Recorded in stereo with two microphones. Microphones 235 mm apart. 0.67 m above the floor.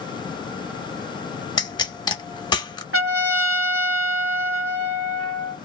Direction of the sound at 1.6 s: 20° left (ahead or behind).